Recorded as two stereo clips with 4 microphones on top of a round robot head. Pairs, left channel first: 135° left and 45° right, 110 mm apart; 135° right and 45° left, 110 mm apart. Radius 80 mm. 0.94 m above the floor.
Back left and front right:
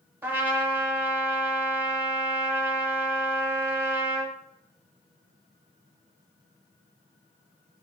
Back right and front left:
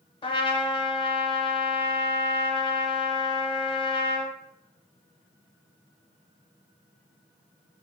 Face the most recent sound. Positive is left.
turn(degrees=-110)